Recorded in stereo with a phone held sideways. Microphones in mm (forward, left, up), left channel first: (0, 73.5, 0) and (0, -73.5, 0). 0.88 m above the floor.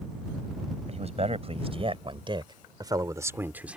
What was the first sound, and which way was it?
A man speaking, 45° right (ahead or behind).